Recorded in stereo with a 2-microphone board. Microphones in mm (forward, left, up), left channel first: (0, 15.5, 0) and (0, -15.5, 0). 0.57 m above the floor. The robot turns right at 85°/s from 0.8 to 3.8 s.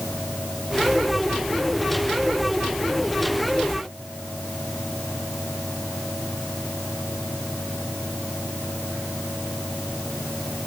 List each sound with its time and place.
Only background noise.